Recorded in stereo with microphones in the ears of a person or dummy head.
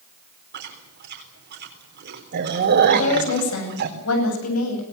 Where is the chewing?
55° right (ahead or behind), 4 m.